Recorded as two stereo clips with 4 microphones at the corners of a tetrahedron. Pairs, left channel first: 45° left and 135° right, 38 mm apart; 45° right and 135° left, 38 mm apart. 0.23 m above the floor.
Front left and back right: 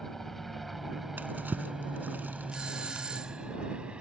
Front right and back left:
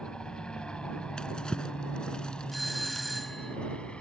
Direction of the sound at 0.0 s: 20° right.